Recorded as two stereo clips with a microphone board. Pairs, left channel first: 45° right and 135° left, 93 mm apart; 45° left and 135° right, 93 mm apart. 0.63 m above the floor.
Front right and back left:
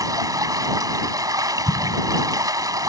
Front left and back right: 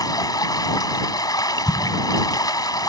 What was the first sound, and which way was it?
Running water, 90° left.